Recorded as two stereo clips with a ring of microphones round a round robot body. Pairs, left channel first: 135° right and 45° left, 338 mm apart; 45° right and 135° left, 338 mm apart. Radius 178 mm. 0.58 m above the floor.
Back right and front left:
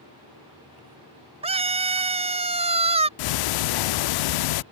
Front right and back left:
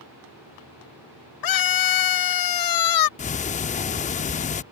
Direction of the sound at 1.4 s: 30° right.